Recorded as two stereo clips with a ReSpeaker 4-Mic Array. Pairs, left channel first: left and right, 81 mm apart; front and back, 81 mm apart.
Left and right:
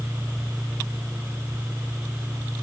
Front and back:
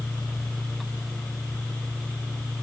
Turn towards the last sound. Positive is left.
No sound to turn to.